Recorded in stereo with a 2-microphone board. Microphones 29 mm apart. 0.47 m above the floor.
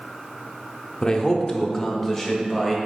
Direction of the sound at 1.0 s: 30° left (ahead or behind).